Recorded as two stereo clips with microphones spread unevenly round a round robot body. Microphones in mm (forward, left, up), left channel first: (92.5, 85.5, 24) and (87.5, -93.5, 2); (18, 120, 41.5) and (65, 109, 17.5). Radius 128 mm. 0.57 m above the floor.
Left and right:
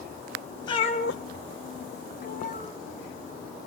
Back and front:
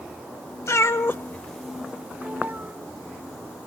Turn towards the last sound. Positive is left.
turn(degrees=40)